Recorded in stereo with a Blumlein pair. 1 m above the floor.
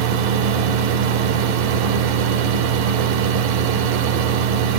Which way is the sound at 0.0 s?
45° right.